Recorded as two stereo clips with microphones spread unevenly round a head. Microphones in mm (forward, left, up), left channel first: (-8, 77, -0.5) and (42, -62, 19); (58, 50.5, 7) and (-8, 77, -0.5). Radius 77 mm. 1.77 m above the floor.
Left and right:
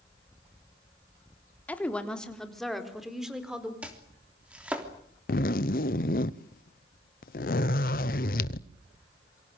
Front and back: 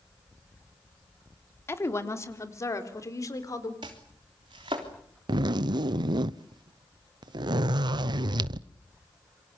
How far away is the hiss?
I don't hear a hiss.